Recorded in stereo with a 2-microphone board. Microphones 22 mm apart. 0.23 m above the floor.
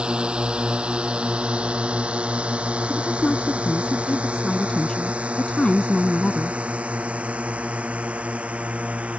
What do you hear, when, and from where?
0.0 s a drone: 50° right (ahead or behind); by 9.2 s 85° right
2.9 s a woman speaking: 40° left (ahead or behind)